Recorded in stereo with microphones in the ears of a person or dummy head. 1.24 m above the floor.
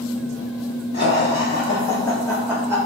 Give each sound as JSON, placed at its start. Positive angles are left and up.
{"t": 0.9, "sound": "laughter", "side_deg": 50, "distance_m": 1.0}